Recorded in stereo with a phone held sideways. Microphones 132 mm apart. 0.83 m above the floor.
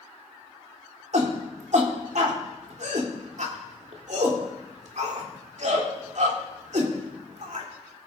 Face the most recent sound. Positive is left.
turn(degrees=-60)  # may be behind; listen again after turning